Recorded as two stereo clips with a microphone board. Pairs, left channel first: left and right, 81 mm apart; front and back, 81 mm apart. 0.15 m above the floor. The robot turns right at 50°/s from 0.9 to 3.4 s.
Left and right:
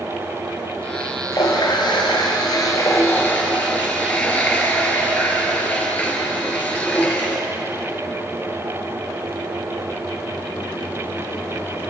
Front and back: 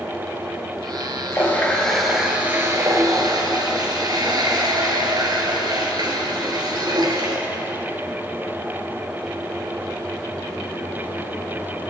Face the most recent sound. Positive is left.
turn(degrees=160)